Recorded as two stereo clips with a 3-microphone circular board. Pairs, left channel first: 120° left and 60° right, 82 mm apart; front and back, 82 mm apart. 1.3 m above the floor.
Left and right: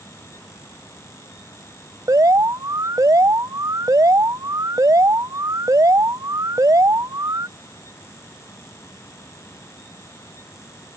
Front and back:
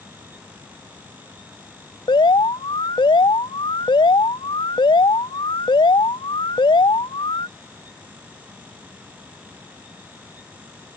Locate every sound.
2.1 s an alarm: 15° right